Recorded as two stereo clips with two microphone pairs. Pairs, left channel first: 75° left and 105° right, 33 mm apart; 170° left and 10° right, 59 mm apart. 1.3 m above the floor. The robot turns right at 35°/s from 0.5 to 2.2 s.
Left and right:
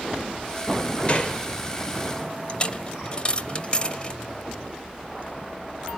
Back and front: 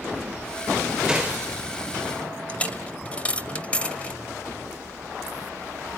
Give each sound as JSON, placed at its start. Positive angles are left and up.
{"t": 1.1, "sound": "a gunshot", "azimuth_deg": 55, "distance_m": 1.2}
{"t": 2.5, "sound": "a dropped coin", "azimuth_deg": 115, "distance_m": 1.2}